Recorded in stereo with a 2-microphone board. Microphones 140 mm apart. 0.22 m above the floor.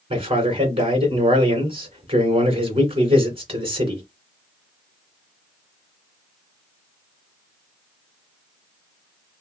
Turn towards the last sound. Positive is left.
turn(degrees=-40)  # may be behind; listen again after turning